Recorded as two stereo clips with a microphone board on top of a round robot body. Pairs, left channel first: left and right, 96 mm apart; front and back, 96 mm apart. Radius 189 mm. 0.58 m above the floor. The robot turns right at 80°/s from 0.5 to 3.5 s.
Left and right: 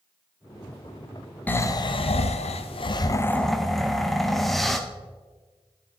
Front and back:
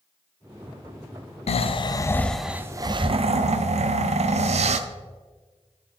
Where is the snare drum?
No snare drum in this recording.